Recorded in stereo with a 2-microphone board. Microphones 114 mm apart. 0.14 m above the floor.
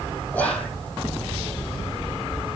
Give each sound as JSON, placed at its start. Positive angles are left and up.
{"t": 0.3, "sound": "whispering", "side_deg": 15, "distance_m": 7.5}